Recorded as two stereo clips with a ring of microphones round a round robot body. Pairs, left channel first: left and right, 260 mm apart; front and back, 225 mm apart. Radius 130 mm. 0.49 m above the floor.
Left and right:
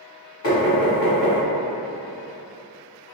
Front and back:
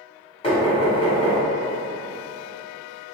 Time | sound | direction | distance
0.4 | knocking | 60° left | 1.6 m